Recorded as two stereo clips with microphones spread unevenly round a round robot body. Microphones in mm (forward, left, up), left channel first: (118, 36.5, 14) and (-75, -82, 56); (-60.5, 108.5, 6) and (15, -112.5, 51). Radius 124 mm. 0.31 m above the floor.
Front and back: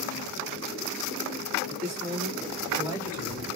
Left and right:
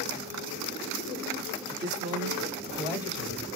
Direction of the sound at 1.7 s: 105° right.